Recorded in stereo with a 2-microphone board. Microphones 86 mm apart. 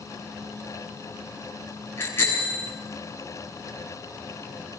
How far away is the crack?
No crack in this recording.